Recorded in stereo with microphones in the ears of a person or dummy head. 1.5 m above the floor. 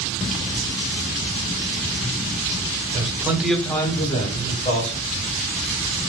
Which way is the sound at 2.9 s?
35° right (ahead or behind).